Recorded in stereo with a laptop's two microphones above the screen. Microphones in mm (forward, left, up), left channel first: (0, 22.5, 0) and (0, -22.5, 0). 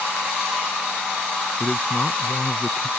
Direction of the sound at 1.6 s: 5° left (ahead or behind).